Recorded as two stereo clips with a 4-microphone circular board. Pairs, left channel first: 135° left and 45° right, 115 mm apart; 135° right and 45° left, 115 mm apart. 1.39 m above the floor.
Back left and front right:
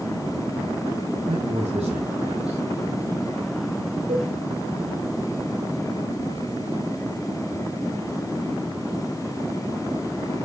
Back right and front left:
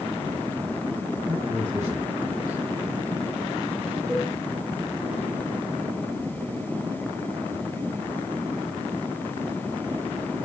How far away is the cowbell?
About 8 m.